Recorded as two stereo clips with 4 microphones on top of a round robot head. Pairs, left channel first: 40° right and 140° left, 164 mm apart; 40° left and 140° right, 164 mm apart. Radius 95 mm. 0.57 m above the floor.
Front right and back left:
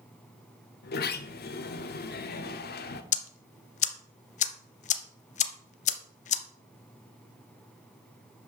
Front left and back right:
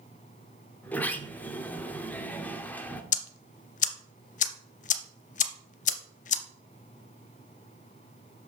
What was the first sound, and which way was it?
A sliding door, 40° right.